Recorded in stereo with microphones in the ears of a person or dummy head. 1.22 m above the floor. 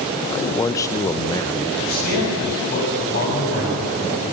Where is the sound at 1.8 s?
50° left (ahead or behind), 7.5 m.